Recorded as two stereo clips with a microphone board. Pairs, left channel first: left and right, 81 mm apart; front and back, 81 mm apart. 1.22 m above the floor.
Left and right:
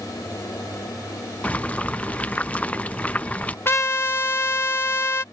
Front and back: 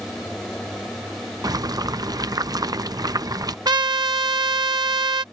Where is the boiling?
160° left.